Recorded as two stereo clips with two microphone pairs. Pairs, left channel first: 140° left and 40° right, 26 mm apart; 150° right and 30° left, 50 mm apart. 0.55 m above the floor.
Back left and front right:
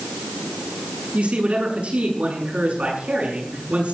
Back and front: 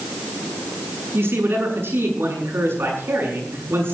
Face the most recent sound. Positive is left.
turn(degrees=-10)